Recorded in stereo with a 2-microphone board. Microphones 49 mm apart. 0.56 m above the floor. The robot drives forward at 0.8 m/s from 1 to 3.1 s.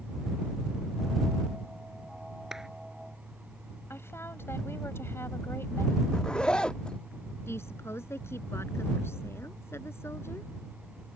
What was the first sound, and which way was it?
A clap, 10° right (ahead or behind).